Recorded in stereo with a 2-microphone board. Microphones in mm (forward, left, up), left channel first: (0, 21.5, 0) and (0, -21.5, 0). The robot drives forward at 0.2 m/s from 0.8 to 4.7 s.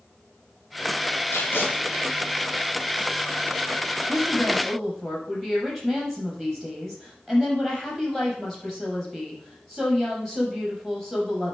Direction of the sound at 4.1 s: 5° left (ahead or behind).